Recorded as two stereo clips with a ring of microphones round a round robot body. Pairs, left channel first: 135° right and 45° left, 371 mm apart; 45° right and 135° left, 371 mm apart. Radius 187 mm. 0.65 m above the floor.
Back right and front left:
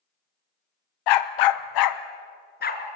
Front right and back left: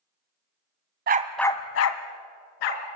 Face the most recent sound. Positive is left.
turn(degrees=-65)